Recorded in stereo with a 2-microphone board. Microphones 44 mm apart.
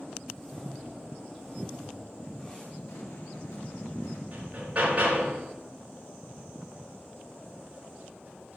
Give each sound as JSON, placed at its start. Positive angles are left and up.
{"t": 0.3, "sound": "a whoosh", "side_deg": 15, "distance_m": 2.0}
{"t": 2.9, "sound": "an explosion", "side_deg": 85, "distance_m": 2.5}
{"t": 4.3, "sound": "hammering", "side_deg": -35, "distance_m": 4.5}